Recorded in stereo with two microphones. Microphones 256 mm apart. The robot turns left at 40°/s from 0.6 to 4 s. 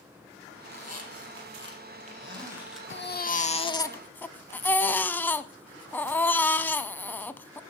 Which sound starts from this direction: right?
A squeak, at 0.7 s.